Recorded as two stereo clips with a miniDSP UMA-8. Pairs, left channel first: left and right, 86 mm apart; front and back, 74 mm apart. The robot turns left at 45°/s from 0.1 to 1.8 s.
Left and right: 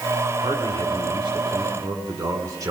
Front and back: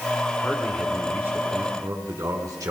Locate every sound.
0.4 s a man speaking: 75° right, 5 m; by 2.7 s 135° right, 5 m